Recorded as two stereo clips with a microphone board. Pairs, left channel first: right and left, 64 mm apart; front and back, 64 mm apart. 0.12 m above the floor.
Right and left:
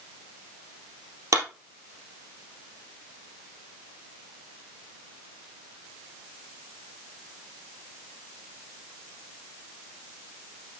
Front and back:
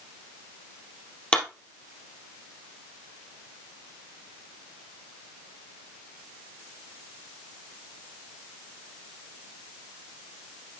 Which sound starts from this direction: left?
A clap, at 1.3 s.